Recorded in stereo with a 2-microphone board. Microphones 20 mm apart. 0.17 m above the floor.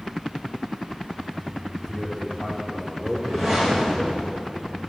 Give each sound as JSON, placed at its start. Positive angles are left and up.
{"t": 1.8, "sound": "a man speaking", "side_deg": 0, "distance_m": 6.5}
{"t": 3.1, "sound": "a whoosh", "side_deg": -5, "distance_m": 5.0}